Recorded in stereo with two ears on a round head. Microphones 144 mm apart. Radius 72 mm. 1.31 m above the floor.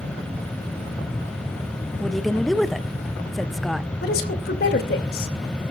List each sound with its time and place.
2.0 s a woman speaking: centre (ahead or behind), 0.6 m
4.0 s a woman speaking: 60° left (ahead or behind), 3 m